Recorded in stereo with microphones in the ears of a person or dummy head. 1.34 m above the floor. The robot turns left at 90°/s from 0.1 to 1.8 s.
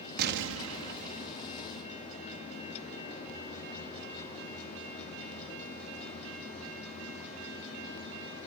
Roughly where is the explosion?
Ahead right.